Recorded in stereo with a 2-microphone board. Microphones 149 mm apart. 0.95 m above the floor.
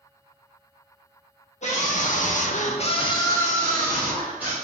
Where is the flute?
I don't hear a flute.